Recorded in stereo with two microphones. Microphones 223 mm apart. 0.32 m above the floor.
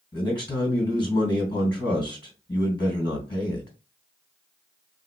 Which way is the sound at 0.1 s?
20° left (ahead or behind).